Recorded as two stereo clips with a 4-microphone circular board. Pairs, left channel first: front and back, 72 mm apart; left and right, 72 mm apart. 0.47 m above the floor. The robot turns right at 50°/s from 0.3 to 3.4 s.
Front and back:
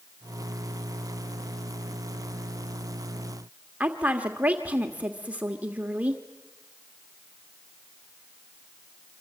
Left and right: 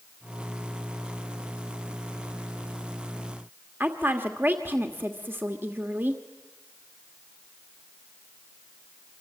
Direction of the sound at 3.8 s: 125° right.